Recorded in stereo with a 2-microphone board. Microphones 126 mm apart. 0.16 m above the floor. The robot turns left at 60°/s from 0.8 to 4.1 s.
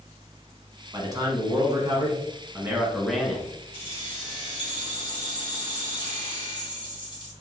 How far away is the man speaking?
About 1.1 m.